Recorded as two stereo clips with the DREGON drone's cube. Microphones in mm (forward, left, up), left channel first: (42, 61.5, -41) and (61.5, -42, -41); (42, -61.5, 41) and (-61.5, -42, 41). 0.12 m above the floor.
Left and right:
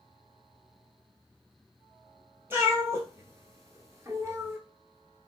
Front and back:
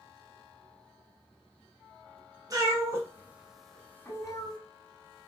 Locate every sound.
2.5 s a cat meowing: 140° right, 1.1 m; by 4.6 s 25° right, 0.8 m